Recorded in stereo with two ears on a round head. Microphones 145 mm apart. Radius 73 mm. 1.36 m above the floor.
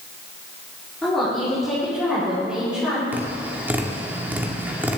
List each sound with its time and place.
1.0 s a woman speaking: 5° left (ahead or behind), 4.5 m; by 3.0 s 5° right (ahead or behind), 5.5 m
3.1 s tapping: 10° right (ahead or behind), 1.7 m